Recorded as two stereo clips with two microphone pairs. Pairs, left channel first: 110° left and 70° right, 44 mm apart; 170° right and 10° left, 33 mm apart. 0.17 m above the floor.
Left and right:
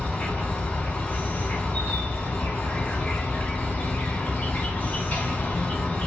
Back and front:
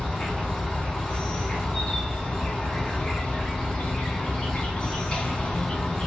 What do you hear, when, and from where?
0.0 s an insect: 140° left, 0.8 m